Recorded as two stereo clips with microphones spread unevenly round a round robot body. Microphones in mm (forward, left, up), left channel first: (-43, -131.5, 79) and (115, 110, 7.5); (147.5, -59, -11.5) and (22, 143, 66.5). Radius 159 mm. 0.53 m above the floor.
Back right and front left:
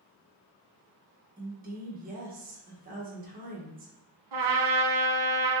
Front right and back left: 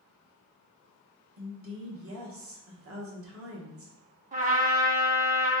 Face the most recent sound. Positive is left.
turn(degrees=70)